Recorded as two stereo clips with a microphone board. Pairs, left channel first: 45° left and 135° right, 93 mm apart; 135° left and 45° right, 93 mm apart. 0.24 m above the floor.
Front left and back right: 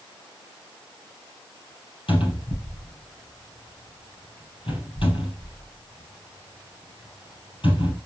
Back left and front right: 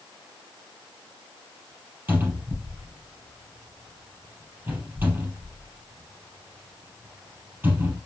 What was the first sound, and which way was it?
A cupboard door, 25° left.